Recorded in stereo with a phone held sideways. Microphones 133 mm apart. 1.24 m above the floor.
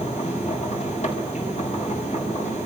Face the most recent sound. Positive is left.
turn(degrees=60)  # may be behind; listen again after turning